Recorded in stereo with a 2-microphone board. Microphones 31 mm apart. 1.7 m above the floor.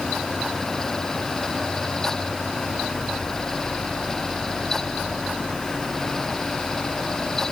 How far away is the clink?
I don't hear a clink.